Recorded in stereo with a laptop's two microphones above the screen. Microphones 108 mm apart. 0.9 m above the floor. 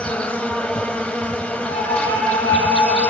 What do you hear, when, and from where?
0.0 s an insect: 10° left (ahead or behind), 0.7 m
1.7 s a flute: 35° left (ahead or behind), 8 m